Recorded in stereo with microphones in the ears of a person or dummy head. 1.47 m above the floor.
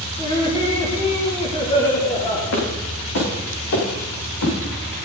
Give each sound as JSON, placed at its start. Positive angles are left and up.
{"t": 0.2, "sound": "laughter", "side_deg": 25, "distance_m": 3.0}
{"t": 2.5, "sound": "footsteps", "side_deg": 65, "distance_m": 6.0}